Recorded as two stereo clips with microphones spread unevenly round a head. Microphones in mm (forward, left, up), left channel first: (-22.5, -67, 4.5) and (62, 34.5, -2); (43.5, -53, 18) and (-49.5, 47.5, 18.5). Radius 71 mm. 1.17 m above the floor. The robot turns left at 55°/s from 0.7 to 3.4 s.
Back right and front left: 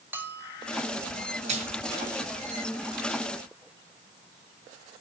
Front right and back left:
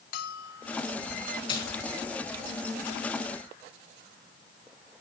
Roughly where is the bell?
Ahead right.